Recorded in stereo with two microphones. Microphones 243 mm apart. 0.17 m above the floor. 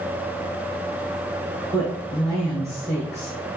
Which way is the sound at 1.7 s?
5° left (ahead or behind).